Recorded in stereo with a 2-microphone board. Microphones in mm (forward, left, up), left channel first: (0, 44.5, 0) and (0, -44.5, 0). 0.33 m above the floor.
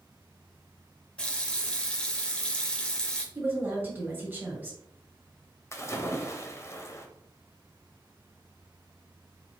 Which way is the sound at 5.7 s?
30° left (ahead or behind).